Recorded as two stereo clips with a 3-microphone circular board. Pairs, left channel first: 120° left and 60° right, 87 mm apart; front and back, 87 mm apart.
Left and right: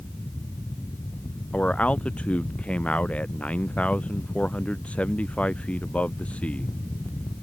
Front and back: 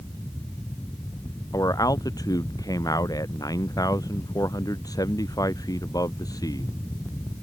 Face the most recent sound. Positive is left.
turn(degrees=45)